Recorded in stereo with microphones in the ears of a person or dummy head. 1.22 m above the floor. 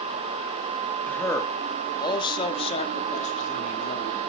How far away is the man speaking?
About 2 m.